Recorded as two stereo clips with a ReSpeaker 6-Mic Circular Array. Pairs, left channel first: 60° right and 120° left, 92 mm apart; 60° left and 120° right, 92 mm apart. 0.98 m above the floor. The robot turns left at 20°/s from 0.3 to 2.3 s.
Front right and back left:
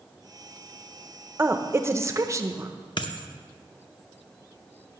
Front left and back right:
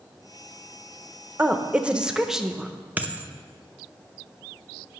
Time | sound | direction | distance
1.4 | a woman speaking | 175° left | 0.7 m
3.0 | a dropped coin | 50° right | 0.7 m